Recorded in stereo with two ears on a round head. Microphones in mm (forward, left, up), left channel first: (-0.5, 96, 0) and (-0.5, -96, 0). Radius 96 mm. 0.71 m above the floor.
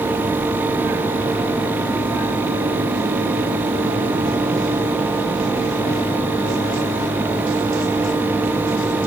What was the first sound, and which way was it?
Only background noise.